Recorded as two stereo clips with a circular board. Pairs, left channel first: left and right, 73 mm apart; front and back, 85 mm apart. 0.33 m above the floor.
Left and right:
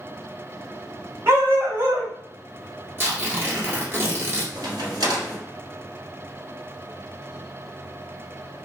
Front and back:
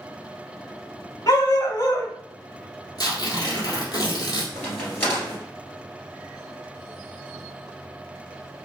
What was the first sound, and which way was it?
A dog barking, 40° right.